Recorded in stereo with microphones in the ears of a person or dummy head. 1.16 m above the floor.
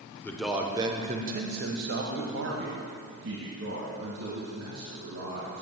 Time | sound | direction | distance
0.2 | a man speaking | 10° left (ahead or behind) | 0.6 m